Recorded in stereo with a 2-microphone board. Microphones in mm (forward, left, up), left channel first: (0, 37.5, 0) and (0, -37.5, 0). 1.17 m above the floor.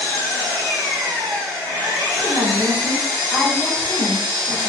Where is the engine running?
65° right (ahead or behind), 1.5 m.